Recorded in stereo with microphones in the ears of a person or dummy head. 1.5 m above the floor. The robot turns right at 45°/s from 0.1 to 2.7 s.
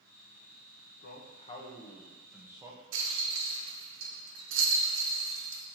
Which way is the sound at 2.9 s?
65° right (ahead or behind).